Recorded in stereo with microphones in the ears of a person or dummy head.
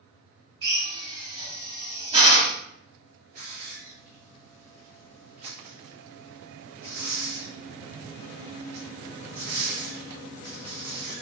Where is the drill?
25° right (ahead or behind), 1.6 m.